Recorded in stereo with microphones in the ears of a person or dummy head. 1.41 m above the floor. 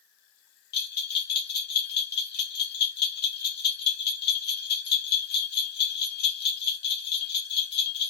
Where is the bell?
60° left (ahead or behind), 1.0 m.